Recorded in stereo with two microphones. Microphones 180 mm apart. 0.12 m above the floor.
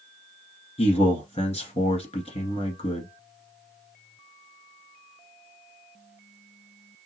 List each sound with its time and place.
0.8 s a man speaking: 35° left (ahead or behind), 1.7 m